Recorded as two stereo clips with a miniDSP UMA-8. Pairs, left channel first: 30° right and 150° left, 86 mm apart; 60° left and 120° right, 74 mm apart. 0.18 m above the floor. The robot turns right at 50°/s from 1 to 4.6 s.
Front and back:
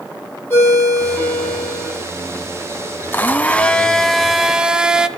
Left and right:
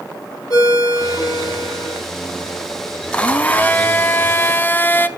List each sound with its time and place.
0.5 s a ringtone: 35° left, 4.5 m; by 2.0 s 85° left, 4.5 m
3.1 s a blender: 5° left, 0.5 m; by 5.1 s 80° left, 0.5 m